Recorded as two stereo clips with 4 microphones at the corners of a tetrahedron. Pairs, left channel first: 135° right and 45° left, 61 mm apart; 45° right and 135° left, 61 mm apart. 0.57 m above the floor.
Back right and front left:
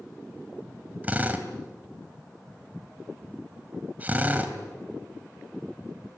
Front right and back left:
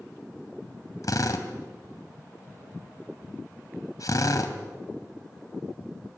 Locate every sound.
1.0 s a drill: 20° right, 2.5 m